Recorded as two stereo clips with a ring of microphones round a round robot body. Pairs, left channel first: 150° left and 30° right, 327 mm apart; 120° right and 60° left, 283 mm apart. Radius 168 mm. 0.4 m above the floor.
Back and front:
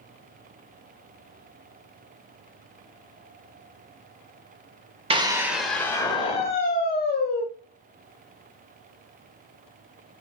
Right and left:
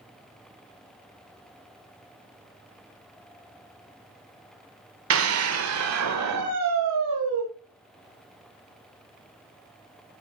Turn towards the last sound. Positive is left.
turn(degrees=95)